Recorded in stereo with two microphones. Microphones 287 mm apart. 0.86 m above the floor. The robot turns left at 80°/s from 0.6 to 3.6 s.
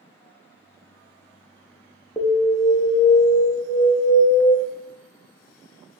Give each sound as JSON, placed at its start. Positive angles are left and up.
{"t": 2.2, "sound": "an alarm", "azimuth_deg": 175, "distance_m": 0.7}